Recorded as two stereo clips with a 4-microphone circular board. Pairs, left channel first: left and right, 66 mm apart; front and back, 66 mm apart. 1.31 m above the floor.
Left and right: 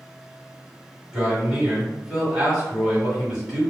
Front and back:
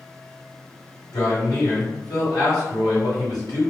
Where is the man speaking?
15° right, 1.9 m.